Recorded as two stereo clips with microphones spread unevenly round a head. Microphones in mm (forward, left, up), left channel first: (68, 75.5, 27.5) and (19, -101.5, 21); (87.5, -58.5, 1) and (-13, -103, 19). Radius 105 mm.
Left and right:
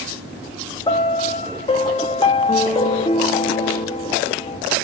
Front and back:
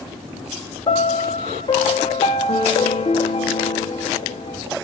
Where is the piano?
15° left, 0.7 m.